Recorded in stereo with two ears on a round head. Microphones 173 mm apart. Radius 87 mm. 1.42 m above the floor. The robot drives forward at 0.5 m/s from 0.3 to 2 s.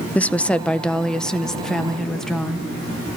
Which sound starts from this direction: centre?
A woman speaking, at 0.1 s.